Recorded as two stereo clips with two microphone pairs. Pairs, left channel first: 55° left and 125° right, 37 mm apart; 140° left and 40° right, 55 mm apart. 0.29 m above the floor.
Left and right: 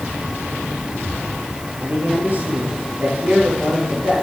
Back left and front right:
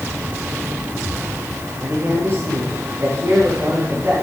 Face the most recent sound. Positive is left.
turn(degrees=-80)